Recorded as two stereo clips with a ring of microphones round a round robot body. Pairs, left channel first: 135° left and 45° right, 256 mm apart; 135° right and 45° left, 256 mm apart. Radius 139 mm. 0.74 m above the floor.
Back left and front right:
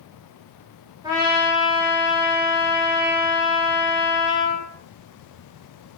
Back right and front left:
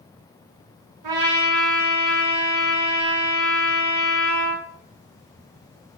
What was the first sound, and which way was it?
A trumpet, 30° left.